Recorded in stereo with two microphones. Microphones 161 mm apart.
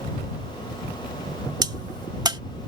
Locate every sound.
1.6 s a crack: 25° right (ahead or behind)